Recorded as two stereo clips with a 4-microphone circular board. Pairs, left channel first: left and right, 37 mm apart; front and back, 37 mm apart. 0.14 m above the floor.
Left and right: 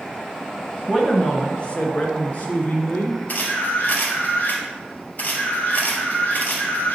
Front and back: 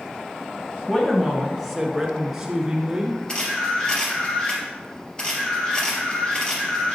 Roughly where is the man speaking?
Ahead left.